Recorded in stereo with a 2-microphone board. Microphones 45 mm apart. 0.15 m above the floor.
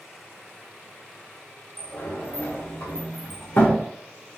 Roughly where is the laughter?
I don't hear laughter.